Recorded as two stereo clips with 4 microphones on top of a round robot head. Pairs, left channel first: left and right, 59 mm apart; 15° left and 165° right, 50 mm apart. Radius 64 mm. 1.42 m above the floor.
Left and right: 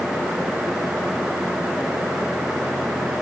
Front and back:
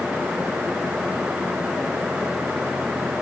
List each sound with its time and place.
Only background noise.